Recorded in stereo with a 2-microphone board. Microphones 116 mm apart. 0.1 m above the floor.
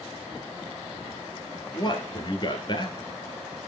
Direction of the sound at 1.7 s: 40° left (ahead or behind).